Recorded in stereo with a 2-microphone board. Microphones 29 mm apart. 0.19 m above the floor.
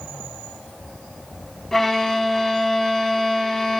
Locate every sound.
1.7 s a violin: 10° left (ahead or behind), 0.5 m